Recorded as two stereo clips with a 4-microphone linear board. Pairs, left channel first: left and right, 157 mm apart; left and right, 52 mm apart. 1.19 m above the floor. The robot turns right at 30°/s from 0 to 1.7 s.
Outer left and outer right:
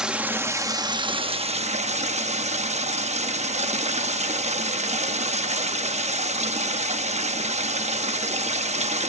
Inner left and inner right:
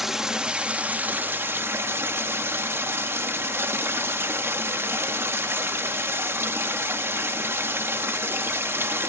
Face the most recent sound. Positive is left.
turn(degrees=-125)